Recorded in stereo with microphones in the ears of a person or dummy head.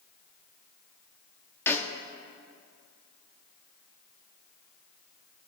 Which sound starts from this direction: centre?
A snare drum, at 1.7 s.